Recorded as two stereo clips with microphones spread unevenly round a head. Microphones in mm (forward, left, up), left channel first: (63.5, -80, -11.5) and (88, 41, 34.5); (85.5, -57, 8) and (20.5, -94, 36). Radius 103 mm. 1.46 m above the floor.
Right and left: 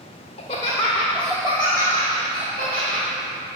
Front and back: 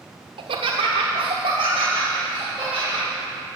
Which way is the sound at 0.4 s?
145° right.